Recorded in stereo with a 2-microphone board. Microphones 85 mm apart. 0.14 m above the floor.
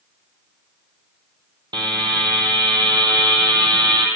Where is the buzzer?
60° right (ahead or behind), 0.8 m.